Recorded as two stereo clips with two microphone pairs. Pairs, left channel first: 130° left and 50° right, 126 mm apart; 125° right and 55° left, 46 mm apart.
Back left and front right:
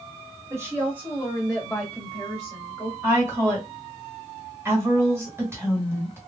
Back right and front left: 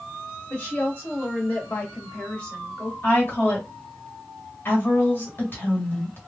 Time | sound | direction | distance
0.5 | a woman speaking | 110° right | 1.5 m
3.0 | a woman speaking | 115° right | 1.9 m